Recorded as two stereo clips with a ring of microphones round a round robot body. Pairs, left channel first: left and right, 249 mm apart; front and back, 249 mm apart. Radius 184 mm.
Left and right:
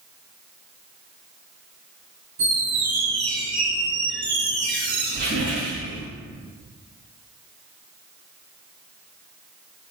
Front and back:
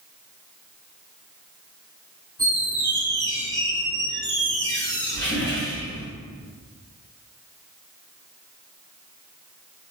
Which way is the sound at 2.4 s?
45° right.